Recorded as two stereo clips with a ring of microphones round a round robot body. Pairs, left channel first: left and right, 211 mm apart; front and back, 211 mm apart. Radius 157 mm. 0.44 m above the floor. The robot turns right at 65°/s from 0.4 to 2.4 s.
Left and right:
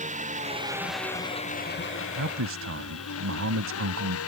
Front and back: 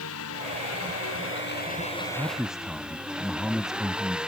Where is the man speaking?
105° right; by 4.2 s 90° right.